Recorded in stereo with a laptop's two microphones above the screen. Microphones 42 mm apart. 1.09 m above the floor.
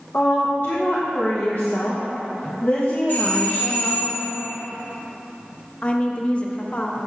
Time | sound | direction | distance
0.1 | a woman speaking | 45° left (ahead or behind) | 1.0 m
3.1 | a doorbell | 55° left (ahead or behind) | 0.9 m
5.8 | a woman speaking | 30° left (ahead or behind) | 0.8 m